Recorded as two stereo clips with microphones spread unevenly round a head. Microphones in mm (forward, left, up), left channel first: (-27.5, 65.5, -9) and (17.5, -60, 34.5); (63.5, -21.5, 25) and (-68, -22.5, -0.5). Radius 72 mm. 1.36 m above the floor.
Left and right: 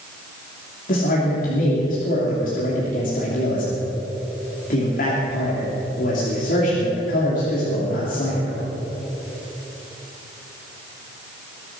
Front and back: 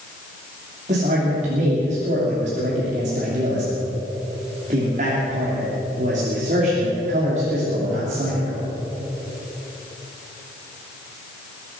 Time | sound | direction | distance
0.9 | a man speaking | 135° left | 3 m